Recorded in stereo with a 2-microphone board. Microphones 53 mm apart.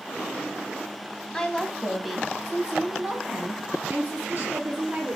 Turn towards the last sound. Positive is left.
turn(degrees=-35)  # may be behind; listen again after turning